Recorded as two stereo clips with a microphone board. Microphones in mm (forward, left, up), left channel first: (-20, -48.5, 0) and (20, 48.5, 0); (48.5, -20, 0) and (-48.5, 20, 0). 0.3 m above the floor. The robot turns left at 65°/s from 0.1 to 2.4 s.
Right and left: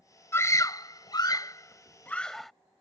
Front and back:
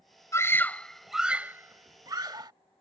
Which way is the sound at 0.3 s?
65° right.